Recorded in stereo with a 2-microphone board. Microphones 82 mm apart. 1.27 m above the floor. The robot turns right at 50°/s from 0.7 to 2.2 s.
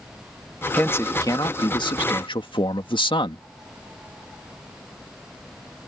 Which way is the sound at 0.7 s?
20° left.